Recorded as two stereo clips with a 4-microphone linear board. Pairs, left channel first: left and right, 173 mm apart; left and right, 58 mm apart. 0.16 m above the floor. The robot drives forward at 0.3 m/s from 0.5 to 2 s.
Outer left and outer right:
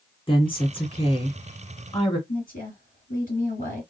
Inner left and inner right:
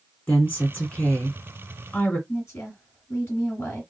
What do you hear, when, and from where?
0.3 s a woman speaking: 30° left (ahead or behind), 1.9 m
2.3 s a woman speaking: 55° left (ahead or behind), 2.5 m